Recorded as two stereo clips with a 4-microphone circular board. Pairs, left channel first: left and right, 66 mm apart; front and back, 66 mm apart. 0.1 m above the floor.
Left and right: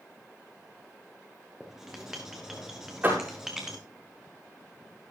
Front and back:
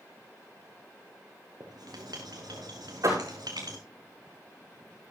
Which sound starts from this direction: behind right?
A door slam, at 3.0 s.